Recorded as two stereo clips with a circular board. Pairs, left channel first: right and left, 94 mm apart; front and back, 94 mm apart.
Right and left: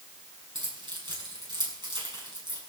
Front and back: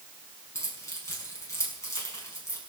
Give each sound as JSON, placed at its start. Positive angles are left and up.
{"t": 0.6, "sound": "keys jangling", "azimuth_deg": 60, "distance_m": 6.0}